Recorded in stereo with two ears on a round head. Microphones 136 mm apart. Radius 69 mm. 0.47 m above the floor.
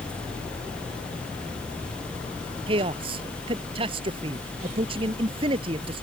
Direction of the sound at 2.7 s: 35° right (ahead or behind).